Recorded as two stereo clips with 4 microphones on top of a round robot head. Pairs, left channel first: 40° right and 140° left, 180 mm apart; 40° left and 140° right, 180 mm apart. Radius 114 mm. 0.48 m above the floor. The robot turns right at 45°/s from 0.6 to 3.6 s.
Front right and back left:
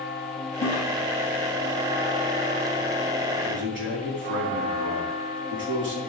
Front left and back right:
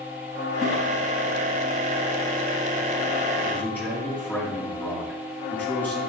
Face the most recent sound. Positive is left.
turn(degrees=125)